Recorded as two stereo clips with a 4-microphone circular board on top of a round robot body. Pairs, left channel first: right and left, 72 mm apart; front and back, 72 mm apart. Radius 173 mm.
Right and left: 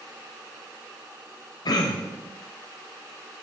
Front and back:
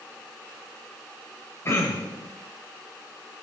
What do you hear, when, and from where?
1.6 s throat clearing: 60° right, 2.5 m